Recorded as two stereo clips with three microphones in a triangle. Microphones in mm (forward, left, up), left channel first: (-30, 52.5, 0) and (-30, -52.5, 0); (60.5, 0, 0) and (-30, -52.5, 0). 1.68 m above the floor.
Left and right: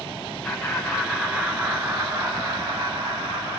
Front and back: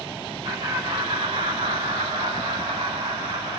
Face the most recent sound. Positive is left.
turn(degrees=-130)